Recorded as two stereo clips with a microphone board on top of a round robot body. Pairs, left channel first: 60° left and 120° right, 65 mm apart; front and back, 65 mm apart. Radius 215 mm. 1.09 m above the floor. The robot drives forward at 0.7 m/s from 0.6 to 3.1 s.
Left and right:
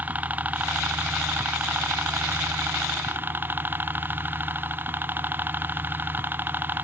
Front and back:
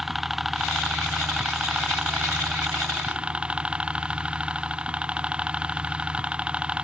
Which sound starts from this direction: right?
A helicopter, at 0.0 s.